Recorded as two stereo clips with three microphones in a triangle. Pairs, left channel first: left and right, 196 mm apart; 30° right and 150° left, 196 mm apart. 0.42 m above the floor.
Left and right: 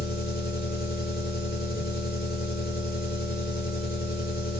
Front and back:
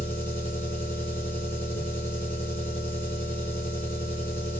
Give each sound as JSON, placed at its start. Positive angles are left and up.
{"t": 0.0, "sound": "an engine running", "azimuth_deg": 50, "distance_m": 3.5}